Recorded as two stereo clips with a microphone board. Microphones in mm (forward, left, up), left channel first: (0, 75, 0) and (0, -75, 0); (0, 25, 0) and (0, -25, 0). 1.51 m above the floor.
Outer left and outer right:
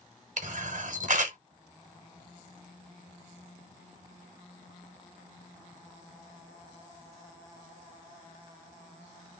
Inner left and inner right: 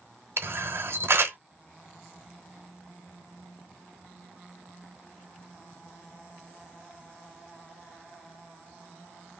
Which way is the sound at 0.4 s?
60° right (ahead or behind).